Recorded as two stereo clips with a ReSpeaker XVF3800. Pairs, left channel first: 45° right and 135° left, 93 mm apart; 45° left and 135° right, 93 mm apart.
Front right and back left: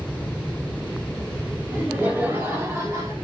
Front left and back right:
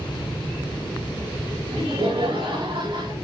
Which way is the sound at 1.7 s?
150° right.